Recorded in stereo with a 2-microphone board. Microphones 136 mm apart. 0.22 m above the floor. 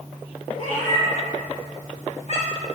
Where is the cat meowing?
65° left (ahead or behind), 4 m.